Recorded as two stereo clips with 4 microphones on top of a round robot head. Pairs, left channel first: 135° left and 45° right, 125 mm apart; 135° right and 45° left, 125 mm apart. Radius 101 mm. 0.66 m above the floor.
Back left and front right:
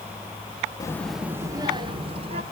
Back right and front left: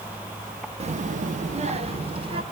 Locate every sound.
0.8 s a child speaking: 75° left, 1.0 m; by 2.4 s 5° right, 2.5 m